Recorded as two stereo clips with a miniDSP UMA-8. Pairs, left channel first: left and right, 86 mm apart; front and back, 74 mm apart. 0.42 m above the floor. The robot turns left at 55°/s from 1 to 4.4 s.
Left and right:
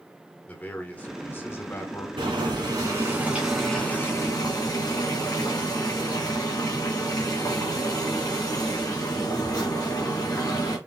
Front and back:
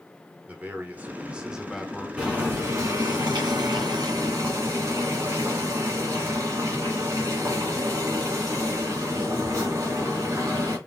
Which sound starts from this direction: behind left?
A man speaking, at 0.5 s.